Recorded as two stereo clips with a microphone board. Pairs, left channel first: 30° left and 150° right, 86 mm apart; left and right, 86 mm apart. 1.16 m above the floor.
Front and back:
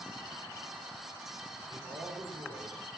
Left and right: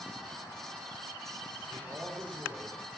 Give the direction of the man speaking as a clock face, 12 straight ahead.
5 o'clock.